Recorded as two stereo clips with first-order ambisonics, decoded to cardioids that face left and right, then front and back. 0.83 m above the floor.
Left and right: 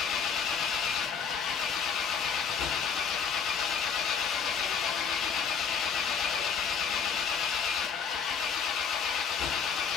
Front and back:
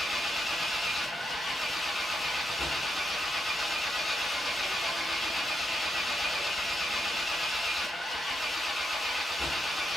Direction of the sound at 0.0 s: 80° left.